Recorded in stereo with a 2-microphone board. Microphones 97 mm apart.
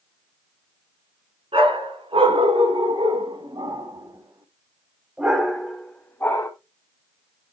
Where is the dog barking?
75° right (ahead or behind), 2.5 m; by 6.5 s 25° left (ahead or behind), 1.4 m.